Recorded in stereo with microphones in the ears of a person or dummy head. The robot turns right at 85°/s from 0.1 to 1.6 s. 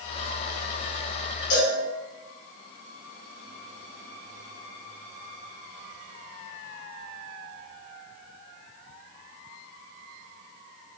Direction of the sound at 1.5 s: 50° left (ahead or behind).